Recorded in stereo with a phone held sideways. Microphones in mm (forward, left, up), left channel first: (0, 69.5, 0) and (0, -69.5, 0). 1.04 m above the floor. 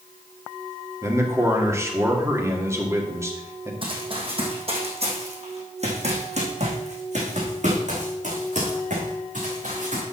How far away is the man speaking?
About 2 m.